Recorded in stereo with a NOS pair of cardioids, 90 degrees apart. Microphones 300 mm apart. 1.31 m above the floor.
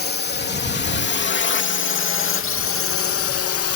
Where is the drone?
35° left; by 3.8 s 65° left.